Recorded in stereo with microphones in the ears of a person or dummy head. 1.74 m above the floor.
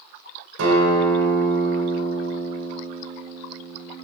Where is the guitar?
80° right, 4.5 m.